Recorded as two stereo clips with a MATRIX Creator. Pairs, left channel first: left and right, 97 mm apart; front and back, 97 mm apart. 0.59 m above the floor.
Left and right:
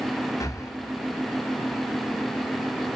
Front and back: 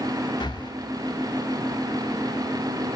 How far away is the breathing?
About 0.9 m.